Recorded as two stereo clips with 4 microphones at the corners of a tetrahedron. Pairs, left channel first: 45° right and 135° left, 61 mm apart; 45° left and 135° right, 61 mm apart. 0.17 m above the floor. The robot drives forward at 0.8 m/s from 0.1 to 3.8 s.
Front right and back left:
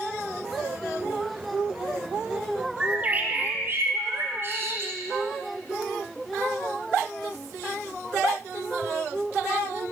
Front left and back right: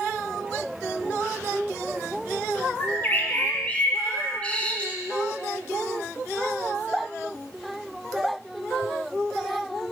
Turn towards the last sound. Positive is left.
turn(degrees=110)